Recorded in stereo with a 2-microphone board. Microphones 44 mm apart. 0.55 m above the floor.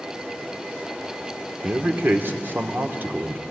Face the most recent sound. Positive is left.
turn(degrees=-50)  # may be behind; listen again after turning